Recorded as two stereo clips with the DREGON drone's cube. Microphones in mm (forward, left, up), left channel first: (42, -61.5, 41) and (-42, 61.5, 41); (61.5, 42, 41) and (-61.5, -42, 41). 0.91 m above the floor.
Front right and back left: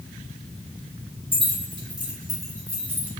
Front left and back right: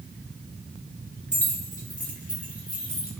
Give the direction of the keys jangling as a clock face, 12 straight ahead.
10 o'clock.